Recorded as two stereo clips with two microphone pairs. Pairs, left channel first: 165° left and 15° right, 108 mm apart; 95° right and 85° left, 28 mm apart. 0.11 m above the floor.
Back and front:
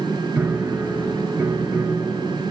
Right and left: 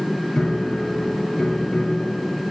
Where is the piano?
80° right, 1.7 m.